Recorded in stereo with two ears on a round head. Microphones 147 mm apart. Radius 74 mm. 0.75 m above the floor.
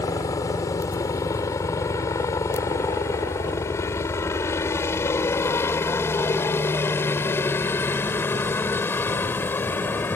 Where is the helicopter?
20° left (ahead or behind); by 10.2 s 15° left (ahead or behind).